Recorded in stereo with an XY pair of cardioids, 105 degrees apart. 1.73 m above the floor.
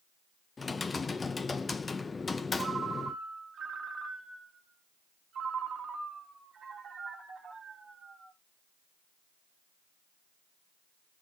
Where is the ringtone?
50° right, 2 m.